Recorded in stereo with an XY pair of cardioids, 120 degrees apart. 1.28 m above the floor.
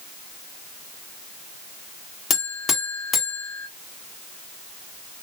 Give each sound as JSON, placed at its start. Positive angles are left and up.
{"t": 2.3, "sound": "a buzzer", "azimuth_deg": 30, "distance_m": 1.5}